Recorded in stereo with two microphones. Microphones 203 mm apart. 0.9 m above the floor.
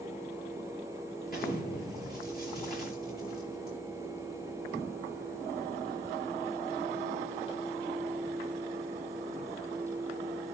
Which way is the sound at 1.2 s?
45° left (ahead or behind).